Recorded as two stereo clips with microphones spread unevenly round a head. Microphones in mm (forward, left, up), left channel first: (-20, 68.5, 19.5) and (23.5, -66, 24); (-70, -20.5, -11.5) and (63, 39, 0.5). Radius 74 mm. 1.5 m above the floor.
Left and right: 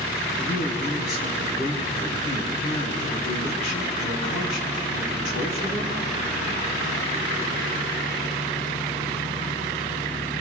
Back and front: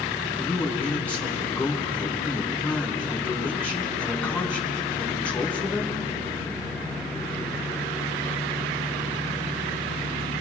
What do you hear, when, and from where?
0.4 s a man speaking: 125° left, 4.5 m